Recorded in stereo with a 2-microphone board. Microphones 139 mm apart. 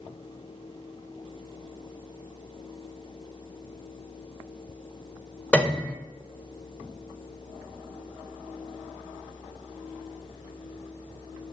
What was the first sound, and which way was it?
A piano, 10° left (ahead or behind).